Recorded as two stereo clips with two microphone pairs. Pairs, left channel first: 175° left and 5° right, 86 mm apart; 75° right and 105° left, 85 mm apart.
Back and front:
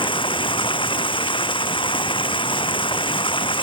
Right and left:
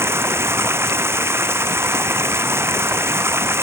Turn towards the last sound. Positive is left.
turn(degrees=165)